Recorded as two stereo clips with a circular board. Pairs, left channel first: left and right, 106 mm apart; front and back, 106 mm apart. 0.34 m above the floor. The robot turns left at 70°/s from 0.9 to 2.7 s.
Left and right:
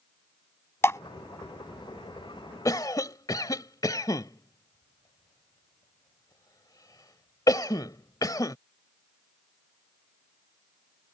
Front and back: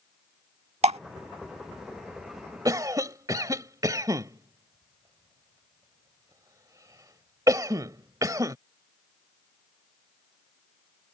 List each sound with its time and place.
0.8 s dripping: 155° left; by 1.0 s 150° left
2.6 s a cough: 135° left